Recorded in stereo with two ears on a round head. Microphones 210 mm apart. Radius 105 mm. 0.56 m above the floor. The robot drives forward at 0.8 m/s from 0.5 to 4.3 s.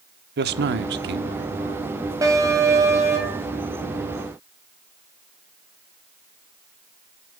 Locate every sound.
0.4 s a man speaking: 45° right (ahead or behind), 1.0 m; by 1.9 s 35° right (ahead or behind), 1.3 m
2.2 s an alarm: 15° right (ahead or behind), 3 m; by 3.5 s 10° right (ahead or behind), 4 m